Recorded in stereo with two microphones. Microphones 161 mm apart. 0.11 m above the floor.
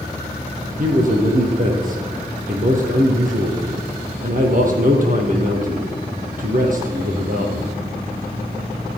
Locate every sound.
0.8 s a man speaking: 50° right (ahead or behind), 3 m